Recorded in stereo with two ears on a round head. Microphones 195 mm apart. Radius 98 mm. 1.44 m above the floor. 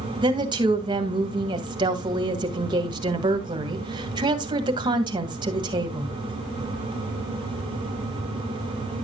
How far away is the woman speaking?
About 1.8 m.